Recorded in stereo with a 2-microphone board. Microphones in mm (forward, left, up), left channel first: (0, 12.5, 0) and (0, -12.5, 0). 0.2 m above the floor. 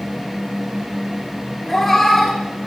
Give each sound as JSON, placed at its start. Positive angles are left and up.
{"t": 1.7, "sound": "a cat meowing", "side_deg": 10, "distance_m": 1.4}